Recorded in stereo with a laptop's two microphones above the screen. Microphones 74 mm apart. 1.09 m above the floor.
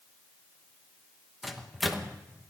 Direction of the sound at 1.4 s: Centre (ahead or behind).